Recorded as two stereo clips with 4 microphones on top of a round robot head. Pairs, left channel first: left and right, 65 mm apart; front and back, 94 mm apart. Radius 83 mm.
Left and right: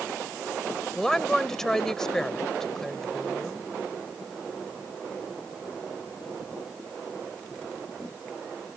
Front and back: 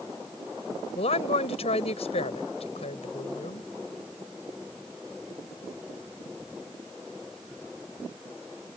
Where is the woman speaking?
5° left.